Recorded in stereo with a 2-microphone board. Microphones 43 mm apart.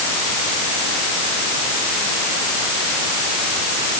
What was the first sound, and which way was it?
Only background noise.